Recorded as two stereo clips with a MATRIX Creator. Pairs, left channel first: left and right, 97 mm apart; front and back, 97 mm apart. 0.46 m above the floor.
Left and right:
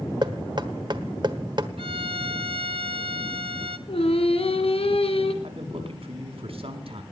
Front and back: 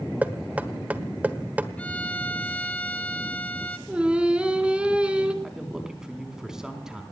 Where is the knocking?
110° right, 1.3 m.